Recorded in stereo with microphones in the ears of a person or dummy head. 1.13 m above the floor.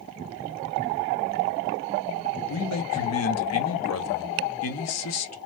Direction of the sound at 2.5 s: 70° left (ahead or behind).